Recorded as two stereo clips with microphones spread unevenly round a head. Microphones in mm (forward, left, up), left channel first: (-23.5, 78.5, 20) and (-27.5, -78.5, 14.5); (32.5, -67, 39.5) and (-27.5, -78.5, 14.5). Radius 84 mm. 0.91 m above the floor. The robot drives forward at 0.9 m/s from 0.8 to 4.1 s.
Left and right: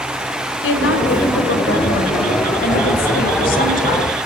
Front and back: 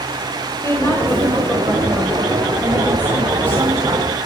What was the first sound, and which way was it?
A woman speaking, 85° left.